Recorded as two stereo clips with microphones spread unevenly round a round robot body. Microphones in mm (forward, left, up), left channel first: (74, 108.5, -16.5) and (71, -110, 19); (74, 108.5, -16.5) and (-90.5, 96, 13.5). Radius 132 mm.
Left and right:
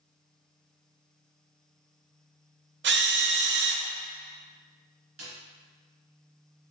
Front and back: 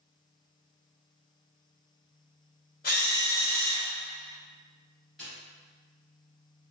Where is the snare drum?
90° right, 2.0 m.